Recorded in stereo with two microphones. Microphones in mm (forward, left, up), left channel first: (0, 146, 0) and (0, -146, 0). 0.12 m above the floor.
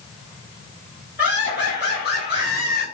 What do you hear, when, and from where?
1.2 s laughter: 35° left (ahead or behind), 1.6 m